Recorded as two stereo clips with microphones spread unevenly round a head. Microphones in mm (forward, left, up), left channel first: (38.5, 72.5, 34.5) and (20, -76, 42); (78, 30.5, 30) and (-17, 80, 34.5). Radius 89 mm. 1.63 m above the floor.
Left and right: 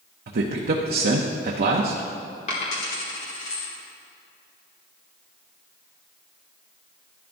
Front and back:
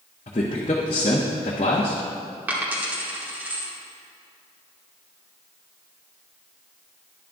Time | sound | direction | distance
0.3 | a man speaking | 75° right | 0.7 m
2.5 | a dropped coin | 100° left | 1.4 m